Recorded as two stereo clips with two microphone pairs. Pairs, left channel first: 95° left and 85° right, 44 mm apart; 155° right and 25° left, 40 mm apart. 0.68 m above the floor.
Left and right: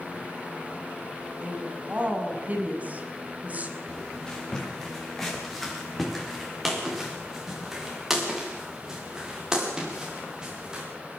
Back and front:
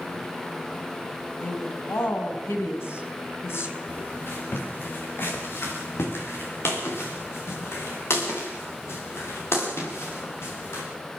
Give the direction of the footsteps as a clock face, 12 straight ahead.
7 o'clock.